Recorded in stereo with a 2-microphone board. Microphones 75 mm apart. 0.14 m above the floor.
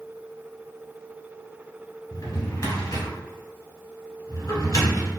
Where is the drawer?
50° left (ahead or behind), 1.1 m.